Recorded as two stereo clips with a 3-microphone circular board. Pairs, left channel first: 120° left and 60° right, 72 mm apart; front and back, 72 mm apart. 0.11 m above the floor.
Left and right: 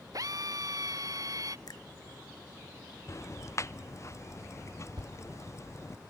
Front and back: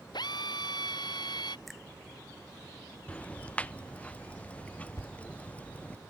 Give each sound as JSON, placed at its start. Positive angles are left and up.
{"t": 0.1, "sound": "a drill", "azimuth_deg": -20}
{"t": 1.7, "sound": "a finger snap", "azimuth_deg": 90}
{"t": 3.1, "sound": "ticking", "azimuth_deg": 75}
{"t": 5.0, "sound": "a thud", "azimuth_deg": -45}